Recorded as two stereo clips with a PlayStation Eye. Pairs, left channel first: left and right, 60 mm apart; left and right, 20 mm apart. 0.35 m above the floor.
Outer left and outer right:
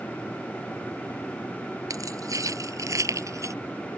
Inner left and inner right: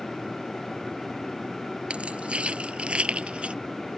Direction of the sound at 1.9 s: 65° right (ahead or behind).